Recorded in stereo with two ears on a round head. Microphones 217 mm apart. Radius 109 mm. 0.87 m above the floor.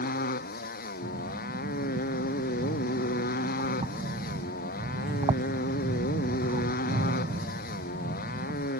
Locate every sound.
0.0 s a motorcycle: 40° left (ahead or behind)
1.0 s breathing: 25° right (ahead or behind)